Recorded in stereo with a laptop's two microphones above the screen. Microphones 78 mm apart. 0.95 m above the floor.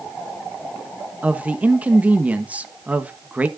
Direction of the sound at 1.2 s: 20° right (ahead or behind).